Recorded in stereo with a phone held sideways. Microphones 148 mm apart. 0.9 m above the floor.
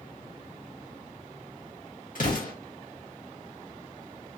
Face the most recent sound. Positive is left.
turn(degrees=70)  # may be behind; listen again after turning